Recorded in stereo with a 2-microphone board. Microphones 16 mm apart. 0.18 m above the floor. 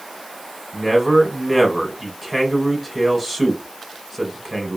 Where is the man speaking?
5° right (ahead or behind), 1.1 m.